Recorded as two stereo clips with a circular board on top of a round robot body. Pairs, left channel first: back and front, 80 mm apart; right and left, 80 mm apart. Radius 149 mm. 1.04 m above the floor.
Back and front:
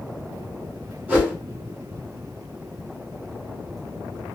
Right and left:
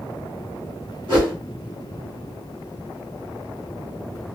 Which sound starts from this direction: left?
A whoosh, at 1.1 s.